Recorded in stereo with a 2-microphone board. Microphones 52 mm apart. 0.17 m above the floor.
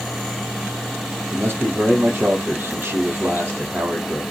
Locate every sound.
1.3 s a man speaking: 45° right (ahead or behind), 5 m